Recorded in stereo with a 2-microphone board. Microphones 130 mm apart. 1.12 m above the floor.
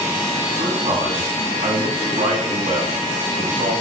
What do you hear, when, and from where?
0.6 s a man speaking: 70° right (ahead or behind), 9.5 m; by 3.7 s 80° right, 9.5 m